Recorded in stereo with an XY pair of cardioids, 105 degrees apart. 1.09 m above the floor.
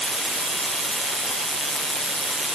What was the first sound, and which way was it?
Only background noise.